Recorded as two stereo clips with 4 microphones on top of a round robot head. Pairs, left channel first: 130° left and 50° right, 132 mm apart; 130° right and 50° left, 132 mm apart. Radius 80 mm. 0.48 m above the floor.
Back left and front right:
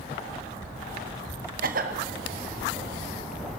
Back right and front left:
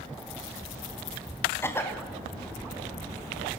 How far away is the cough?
About 3 m.